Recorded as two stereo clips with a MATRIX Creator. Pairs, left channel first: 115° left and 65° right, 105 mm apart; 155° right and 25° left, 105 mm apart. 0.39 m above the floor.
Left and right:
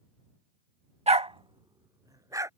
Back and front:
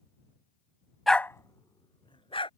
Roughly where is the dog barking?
Right.